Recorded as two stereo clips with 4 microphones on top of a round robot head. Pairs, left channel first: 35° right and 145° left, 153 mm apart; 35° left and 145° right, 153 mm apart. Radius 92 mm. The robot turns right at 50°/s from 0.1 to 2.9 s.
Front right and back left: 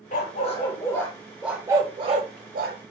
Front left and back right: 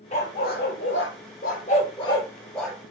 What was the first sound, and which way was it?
A dog barking, 5° right.